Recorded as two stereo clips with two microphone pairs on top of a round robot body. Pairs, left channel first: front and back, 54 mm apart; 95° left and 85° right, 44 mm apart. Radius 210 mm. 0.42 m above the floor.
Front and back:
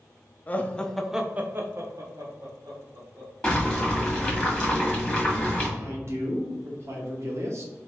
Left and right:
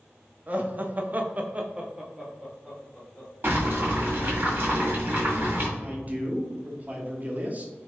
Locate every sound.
0.5 s laughter: 35° right, 1.1 m; by 3.3 s straight behind, 2.0 m
3.4 s boiling: 55° right, 1.9 m
5.8 s a man speaking: 140° right, 1.3 m